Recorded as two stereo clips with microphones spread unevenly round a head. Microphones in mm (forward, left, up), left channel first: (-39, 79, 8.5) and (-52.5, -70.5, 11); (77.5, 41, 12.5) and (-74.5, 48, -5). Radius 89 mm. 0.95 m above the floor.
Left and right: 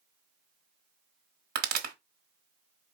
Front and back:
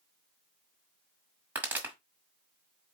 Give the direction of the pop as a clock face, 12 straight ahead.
3 o'clock.